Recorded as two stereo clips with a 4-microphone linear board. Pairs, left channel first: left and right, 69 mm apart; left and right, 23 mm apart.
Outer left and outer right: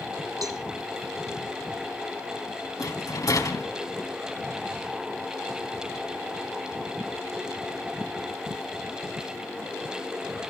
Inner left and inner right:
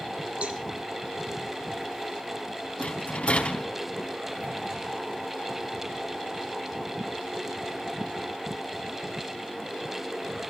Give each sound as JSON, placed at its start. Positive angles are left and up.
{"t": 0.4, "sound": "a cowbell", "side_deg": -70, "distance_m": 1.9}
{"t": 2.8, "sound": "a rattle", "side_deg": 65, "distance_m": 3.0}